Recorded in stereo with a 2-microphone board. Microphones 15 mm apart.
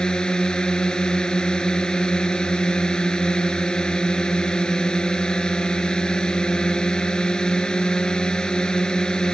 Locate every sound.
0.0 s a drone: 60° left (ahead or behind)